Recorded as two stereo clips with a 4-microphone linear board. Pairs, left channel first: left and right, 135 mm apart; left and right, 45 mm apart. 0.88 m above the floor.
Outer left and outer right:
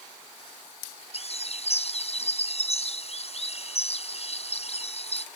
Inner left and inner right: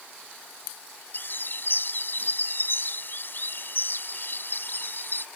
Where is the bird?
50° left (ahead or behind).